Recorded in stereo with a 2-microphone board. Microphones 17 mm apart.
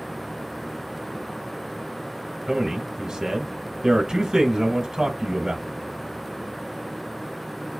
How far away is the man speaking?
About 1.7 m.